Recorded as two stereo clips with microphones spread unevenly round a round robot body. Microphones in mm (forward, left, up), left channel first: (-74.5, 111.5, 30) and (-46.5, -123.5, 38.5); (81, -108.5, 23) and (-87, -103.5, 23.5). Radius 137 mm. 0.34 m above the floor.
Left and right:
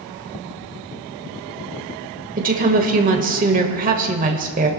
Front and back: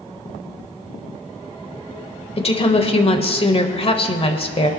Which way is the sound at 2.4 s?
40° right.